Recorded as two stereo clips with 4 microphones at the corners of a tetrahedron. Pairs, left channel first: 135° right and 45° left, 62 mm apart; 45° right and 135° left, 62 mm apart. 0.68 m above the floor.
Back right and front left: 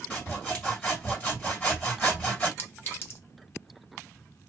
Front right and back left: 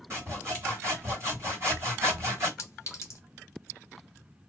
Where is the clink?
85° right, 0.9 m.